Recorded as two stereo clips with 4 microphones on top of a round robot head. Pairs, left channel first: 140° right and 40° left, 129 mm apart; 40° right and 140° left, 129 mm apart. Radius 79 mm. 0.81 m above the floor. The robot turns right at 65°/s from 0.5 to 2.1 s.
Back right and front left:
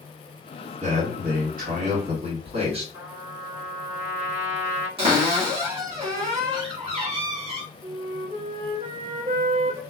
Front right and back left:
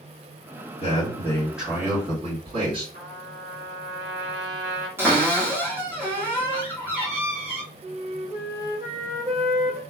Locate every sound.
0.8 s a man speaking: 5° left, 1.8 m; by 2.8 s 90° left, 1.8 m
2.9 s a trumpet: 115° left, 1.9 m
5.0 s a cupboard door: 70° left, 1.3 m
7.8 s a flute: 80° left, 0.6 m